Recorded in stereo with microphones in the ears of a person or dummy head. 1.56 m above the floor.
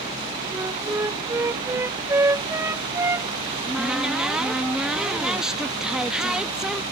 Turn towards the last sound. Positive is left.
turn(degrees=-5)  # may be behind; listen again after turning